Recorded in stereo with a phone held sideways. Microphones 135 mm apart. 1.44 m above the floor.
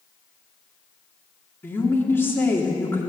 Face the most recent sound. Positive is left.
turn(degrees=15)  # may be behind; listen again after turning